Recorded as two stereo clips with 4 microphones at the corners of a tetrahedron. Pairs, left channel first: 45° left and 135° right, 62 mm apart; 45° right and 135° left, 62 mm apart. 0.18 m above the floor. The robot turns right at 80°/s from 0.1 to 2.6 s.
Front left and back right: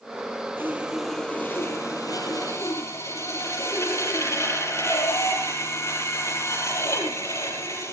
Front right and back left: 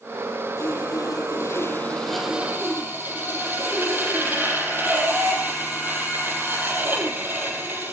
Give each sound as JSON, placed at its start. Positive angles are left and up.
{"t": 0.6, "sound": "sawing", "azimuth_deg": -85, "distance_m": 5.5}